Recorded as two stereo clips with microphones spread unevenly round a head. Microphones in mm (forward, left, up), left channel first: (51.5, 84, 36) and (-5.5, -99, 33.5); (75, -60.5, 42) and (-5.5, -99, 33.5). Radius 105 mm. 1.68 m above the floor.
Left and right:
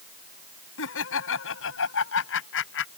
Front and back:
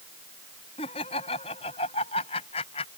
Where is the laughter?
60° left; by 2.9 s 55° left.